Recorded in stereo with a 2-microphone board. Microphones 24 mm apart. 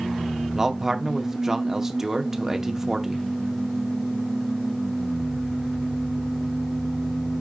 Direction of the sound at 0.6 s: 20° right (ahead or behind).